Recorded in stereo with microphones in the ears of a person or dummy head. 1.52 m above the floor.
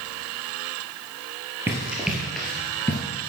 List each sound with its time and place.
1.7 s running footsteps: 5° right (ahead or behind), 2 m; by 3.0 s 20° left (ahead or behind), 1.7 m